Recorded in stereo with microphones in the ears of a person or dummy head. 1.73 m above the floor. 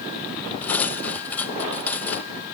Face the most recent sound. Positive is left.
turn(degrees=5)  # may be behind; listen again after turning